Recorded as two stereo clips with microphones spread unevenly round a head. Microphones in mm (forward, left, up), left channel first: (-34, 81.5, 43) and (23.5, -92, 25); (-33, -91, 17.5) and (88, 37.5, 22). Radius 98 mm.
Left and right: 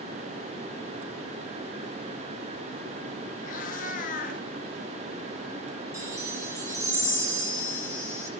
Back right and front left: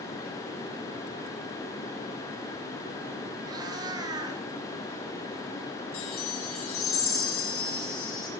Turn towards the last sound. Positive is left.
turn(degrees=-150)